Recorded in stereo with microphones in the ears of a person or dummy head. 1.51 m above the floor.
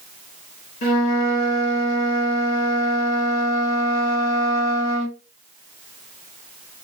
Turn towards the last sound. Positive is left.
turn(degrees=70)  # may be behind; listen again after turning